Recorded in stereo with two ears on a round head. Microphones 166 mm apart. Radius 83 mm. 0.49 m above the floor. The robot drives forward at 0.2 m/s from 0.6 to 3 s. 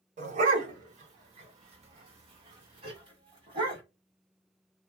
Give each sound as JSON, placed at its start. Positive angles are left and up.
{"t": 0.2, "sound": "a dog barking", "side_deg": -40, "distance_m": 1.0}